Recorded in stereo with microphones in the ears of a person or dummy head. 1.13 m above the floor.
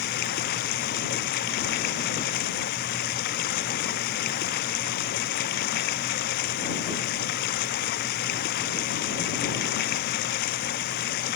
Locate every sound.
0.0 s running water: 55° left (ahead or behind)